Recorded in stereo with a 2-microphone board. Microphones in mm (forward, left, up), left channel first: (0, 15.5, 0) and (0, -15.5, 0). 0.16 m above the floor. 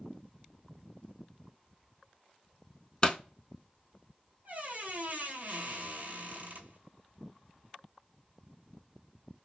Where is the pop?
30° left (ahead or behind), 0.6 m.